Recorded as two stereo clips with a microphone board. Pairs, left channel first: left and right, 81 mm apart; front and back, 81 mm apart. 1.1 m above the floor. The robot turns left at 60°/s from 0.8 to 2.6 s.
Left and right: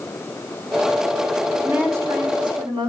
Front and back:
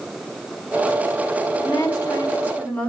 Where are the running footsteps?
I don't hear running footsteps.